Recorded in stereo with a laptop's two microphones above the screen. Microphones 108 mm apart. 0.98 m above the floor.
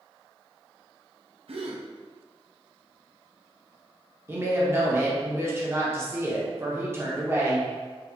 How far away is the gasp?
About 0.5 m.